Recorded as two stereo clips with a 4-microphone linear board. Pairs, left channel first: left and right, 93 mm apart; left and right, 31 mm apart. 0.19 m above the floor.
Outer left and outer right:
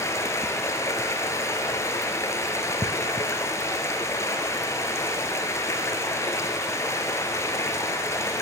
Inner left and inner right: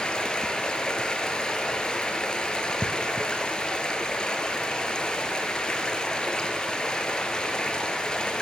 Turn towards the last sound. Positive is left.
turn(degrees=30)  # may be behind; listen again after turning